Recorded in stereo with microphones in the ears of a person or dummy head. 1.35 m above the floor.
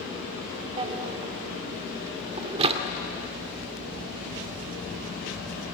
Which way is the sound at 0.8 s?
35° right (ahead or behind).